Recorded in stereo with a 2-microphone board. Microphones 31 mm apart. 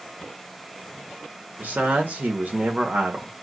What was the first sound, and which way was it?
A man speaking, 70° right (ahead or behind).